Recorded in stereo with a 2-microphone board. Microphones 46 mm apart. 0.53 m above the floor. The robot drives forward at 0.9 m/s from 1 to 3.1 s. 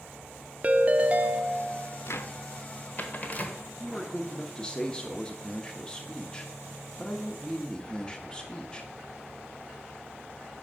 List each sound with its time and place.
0.6 s a ringtone: 30° right (ahead or behind), 0.5 m; by 2.0 s 15° right (ahead or behind), 1.0 m
2.1 s a cupboard door: 60° left (ahead or behind), 0.7 m; by 3.6 s 35° left (ahead or behind), 1.1 m
3.8 s a man speaking: 20° left (ahead or behind), 0.8 m